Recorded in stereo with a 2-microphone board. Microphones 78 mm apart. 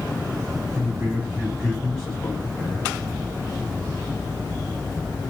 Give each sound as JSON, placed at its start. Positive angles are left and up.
{"t": 0.7, "sound": "a man speaking", "side_deg": -35, "distance_m": 1.7}